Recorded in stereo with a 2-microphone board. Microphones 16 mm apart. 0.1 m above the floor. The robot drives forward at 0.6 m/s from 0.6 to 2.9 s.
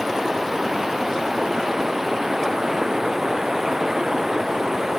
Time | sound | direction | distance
0.0 | running water | 20° right (ahead or behind) | ?